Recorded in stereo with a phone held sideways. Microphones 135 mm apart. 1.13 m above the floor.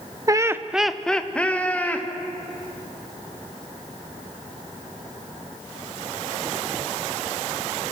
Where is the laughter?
25° right (ahead or behind), 0.6 m; by 2.1 s 10° left (ahead or behind), 2.5 m.